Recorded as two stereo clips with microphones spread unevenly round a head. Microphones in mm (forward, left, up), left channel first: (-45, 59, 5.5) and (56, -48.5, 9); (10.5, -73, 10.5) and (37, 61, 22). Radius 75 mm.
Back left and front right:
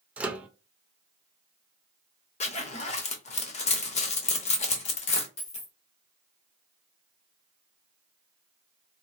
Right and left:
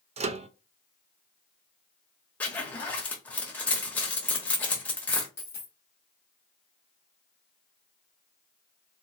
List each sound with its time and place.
0.2 s a microwave: 35° left, 0.6 m
2.4 s a zipper: 175° left, 0.9 m
5.4 s a dropped coin: straight behind, 1.6 m